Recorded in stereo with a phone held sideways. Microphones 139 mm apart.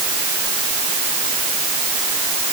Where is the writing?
I don't hear writing.